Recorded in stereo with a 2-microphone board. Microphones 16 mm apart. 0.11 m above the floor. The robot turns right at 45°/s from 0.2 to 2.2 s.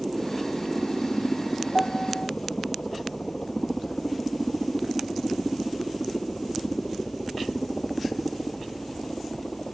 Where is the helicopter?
10° right; by 9.8 s 80° left.